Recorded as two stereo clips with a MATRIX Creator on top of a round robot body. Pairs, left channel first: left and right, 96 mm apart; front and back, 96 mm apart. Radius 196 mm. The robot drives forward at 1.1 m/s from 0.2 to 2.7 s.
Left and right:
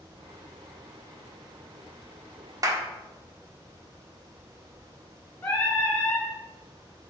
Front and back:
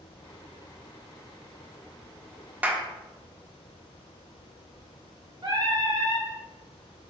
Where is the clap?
115° right, 1.2 m; by 2.9 s 120° right, 1.2 m.